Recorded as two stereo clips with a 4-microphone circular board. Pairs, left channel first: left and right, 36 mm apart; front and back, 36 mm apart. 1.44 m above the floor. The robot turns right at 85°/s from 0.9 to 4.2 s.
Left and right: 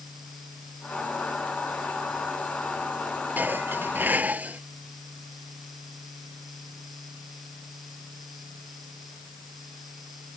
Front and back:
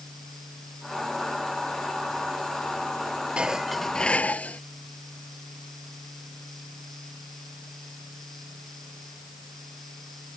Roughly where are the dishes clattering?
Behind right.